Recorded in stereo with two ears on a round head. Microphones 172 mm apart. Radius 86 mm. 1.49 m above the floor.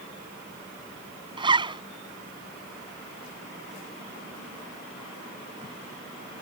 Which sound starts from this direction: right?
A zipper, at 1.4 s.